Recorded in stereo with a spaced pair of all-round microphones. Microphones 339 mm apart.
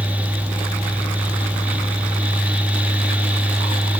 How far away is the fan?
About 0.8 m.